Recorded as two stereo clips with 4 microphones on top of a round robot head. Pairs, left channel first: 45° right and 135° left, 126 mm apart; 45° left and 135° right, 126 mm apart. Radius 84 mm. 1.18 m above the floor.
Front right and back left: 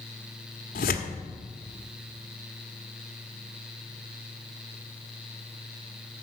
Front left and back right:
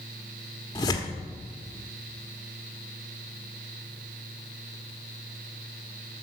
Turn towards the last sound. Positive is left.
turn(degrees=-20)